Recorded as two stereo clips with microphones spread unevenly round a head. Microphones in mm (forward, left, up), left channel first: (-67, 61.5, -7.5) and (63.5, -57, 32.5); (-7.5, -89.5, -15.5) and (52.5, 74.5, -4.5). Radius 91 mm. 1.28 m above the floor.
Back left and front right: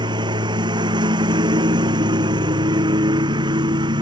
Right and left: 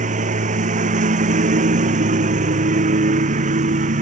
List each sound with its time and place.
0.0 s a lawn mower: 25° left